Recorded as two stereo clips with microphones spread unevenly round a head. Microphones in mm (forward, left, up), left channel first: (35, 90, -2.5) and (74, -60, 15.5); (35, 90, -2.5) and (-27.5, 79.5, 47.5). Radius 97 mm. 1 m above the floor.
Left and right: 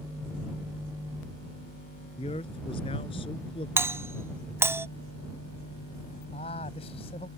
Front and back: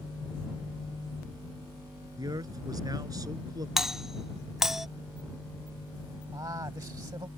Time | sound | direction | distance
2.2 | a man speaking | 170° left | ?
3.8 | a doorbell | straight ahead | ?
6.3 | a man speaking | 170° left | ?